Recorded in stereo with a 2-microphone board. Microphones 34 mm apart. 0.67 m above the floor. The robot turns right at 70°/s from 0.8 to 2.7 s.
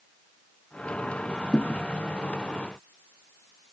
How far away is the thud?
About 0.6 m.